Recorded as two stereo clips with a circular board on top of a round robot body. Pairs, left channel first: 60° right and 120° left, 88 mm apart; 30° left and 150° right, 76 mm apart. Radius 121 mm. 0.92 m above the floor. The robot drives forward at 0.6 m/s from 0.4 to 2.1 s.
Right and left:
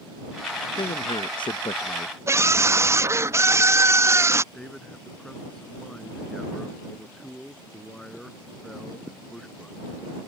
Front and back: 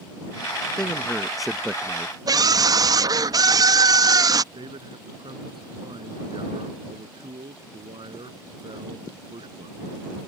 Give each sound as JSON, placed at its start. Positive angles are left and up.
{"t": 0.8, "sound": "a man speaking", "azimuth_deg": -45}
{"t": 2.3, "sound": "a scream", "azimuth_deg": 180}
{"t": 4.5, "sound": "a man speaking", "azimuth_deg": -145}